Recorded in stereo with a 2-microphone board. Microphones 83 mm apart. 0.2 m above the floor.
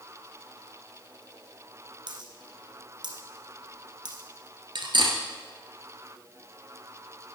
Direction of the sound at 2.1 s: 60° right (ahead or behind).